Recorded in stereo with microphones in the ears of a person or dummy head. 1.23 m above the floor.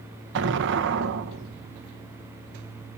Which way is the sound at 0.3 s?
60° right (ahead or behind).